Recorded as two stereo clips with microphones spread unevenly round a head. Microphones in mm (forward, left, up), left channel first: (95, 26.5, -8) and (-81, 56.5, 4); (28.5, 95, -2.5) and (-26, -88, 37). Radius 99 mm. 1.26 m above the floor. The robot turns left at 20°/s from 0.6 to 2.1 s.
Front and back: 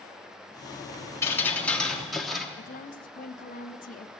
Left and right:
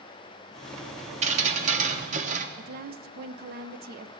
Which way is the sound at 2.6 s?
60° right.